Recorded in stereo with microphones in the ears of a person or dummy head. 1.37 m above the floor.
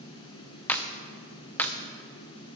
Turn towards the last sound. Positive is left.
turn(degrees=5)  # may be behind; listen again after turning